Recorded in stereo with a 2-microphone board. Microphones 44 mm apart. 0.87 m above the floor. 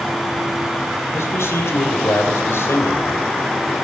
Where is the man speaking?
75° left (ahead or behind), 3.5 m.